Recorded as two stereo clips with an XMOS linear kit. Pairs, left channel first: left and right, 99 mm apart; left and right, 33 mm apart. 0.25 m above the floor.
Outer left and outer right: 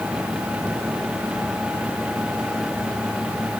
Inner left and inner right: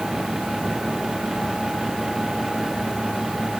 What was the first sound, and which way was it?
Only background noise.